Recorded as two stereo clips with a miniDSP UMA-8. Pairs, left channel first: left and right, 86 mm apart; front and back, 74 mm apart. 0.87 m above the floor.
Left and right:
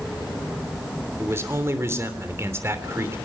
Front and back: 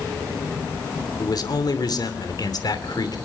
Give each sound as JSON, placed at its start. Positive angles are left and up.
{"t": 1.2, "sound": "a man speaking", "azimuth_deg": -30, "distance_m": 2.5}